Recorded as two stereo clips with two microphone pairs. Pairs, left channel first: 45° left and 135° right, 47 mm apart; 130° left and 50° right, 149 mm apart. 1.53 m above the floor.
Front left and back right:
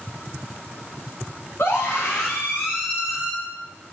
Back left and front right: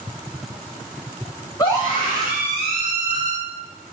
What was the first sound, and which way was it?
A scream, 65° left.